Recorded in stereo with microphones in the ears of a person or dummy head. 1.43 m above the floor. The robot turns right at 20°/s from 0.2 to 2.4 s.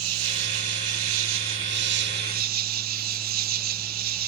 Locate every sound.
0.0 s an insect: 95° right; by 4.3 s 50° right